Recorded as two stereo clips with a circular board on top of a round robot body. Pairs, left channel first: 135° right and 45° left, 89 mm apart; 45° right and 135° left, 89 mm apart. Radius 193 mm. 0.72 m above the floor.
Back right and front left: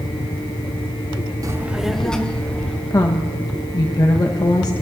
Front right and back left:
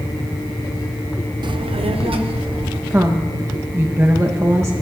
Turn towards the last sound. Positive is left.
turn(degrees=-170)